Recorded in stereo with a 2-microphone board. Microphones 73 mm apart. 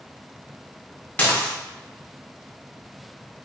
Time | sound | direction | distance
1.2 | dishes clattering | 20° left (ahead or behind) | 0.6 m